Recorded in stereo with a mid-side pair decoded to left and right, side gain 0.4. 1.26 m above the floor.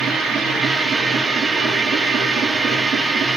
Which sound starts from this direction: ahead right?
A machine running, at 0.0 s.